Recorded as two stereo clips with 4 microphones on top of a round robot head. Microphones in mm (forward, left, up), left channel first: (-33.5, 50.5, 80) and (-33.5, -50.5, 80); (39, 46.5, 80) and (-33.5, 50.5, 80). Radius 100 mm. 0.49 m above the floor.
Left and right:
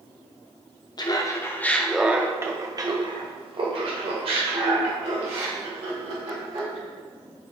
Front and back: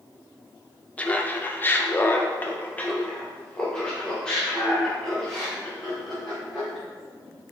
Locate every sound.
1.0 s laughter: 60° left, 1.0 m; by 6.8 s 90° right, 3 m